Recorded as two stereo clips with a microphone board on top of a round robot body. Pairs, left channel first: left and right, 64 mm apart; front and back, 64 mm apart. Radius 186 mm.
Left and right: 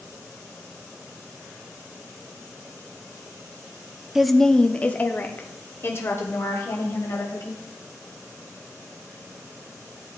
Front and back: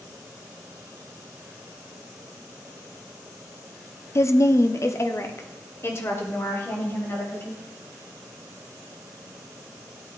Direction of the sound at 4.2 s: 5° right.